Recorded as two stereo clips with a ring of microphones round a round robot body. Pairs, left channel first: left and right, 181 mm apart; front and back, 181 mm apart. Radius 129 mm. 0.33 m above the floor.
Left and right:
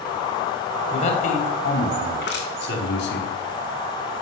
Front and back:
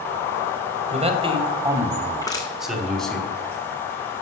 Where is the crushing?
70° left, 3.5 m.